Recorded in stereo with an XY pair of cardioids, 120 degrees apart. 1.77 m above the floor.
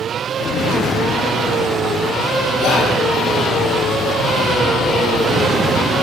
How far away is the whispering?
About 0.7 m.